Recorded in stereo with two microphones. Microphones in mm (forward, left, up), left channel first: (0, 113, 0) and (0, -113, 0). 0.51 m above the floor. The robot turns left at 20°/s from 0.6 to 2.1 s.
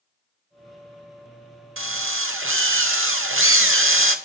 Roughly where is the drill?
Right.